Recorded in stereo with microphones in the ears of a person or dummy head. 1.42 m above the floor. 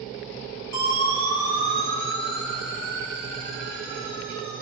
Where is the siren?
75° right (ahead or behind), 7.5 m; by 4.6 s 80° right, 9.5 m.